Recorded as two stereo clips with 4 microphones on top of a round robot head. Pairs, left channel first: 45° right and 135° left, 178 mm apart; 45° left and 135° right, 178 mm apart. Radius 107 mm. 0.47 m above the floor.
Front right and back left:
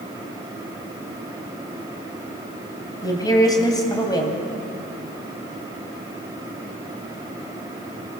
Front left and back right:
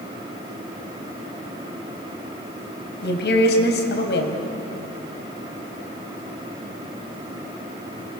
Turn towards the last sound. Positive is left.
turn(degrees=20)